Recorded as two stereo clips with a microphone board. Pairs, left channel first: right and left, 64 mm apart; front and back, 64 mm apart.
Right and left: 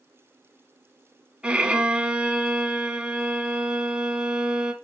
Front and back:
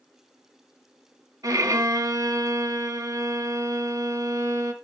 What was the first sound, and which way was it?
A violin, 165° left.